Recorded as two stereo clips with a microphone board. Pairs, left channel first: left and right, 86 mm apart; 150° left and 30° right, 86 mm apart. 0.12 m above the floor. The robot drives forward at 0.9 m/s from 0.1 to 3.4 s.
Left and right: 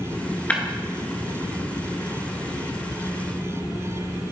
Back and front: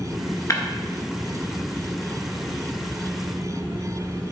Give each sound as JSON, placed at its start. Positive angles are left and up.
{"t": 0.5, "sound": "breaking glass", "azimuth_deg": 155, "distance_m": 1.1}